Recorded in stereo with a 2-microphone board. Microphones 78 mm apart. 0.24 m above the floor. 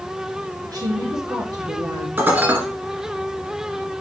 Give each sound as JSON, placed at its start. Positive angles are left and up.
{"t": 0.6, "sound": "a woman speaking", "side_deg": -50, "distance_m": 5.0}
{"t": 2.2, "sound": "dishes clattering", "side_deg": -25, "distance_m": 2.5}